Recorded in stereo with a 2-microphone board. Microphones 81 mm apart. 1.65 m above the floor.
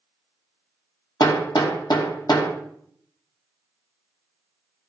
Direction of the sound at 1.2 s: 60° left (ahead or behind).